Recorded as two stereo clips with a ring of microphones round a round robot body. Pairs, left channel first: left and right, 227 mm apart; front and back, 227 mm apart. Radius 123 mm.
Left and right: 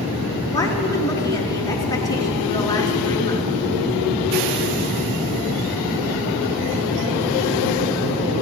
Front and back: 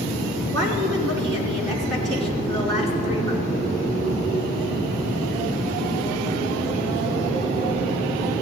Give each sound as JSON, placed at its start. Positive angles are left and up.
{"t": 0.5, "sound": "a woman speaking", "azimuth_deg": 165, "distance_m": 4.0}